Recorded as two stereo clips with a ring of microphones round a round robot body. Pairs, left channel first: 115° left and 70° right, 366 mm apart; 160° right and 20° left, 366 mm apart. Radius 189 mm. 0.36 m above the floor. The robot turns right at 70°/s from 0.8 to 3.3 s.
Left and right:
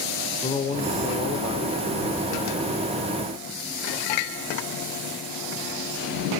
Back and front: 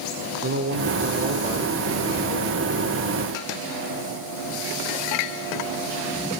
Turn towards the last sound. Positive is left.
turn(degrees=-135)